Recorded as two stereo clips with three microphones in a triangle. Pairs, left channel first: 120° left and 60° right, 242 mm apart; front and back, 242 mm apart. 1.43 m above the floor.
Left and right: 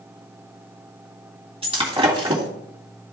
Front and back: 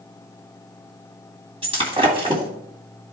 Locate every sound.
1.6 s breaking glass: 120° right, 1.8 m